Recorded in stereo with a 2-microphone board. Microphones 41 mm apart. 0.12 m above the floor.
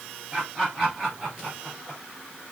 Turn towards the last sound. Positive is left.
turn(degrees=-5)  # may be behind; listen again after turning